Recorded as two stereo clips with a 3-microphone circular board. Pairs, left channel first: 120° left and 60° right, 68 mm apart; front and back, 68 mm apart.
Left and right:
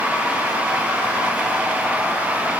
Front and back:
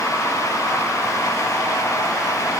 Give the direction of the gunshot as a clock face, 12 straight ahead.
No gunshot in this recording.